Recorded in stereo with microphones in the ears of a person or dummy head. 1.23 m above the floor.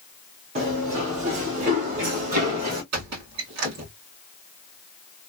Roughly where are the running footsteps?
Right.